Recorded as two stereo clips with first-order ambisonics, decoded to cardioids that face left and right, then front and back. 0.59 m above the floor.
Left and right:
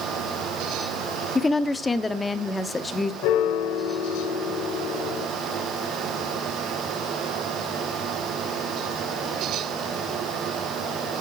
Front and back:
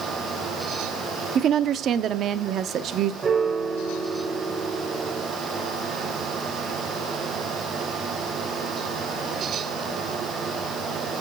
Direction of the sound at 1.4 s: 160° left.